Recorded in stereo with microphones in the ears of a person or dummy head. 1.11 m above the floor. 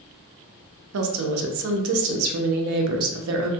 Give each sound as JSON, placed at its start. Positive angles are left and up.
{"t": 0.9, "sound": "a woman speaking", "side_deg": -75, "distance_m": 0.6}